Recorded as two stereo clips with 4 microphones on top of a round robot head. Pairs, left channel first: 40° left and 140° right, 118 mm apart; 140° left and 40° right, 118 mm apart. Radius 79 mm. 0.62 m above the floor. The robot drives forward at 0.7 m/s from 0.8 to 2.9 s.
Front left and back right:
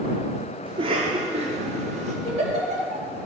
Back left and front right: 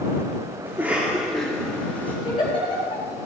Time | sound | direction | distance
0.7 | a cough | 110° right | 1.2 m
2.2 | a giggle | 165° right | 4 m